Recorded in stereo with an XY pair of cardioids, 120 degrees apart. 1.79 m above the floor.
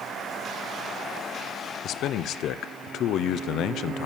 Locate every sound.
1.8 s a man speaking: 65° left, 0.9 m